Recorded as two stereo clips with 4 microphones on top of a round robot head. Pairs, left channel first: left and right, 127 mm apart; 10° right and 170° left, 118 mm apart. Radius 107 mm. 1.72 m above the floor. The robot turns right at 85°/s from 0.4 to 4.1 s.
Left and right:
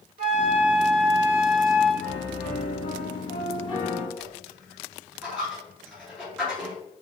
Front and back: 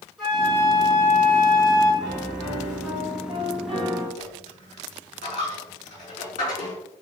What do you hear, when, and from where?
0.2 s a flute: 100° right, 2.5 m; by 1.9 s 30° left, 2.5 m
2.0 s a piano: straight ahead, 1.9 m; by 4.1 s 175° left, 1.9 m
4.2 s a dropped coin: 10° right, 2.5 m